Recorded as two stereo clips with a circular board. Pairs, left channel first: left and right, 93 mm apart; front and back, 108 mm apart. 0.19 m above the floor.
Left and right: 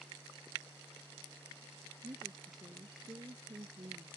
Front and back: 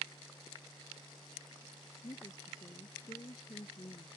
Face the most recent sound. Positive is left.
turn(degrees=-50)